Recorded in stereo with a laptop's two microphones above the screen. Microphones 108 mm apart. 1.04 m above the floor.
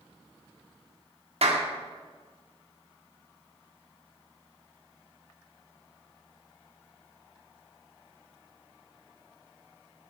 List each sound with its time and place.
1.4 s a clap: 70° right (ahead or behind), 1.5 m